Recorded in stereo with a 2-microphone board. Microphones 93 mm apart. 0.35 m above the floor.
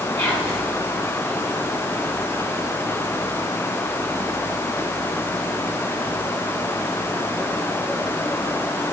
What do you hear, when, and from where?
0.2 s whispering: 30° left (ahead or behind), 1.7 m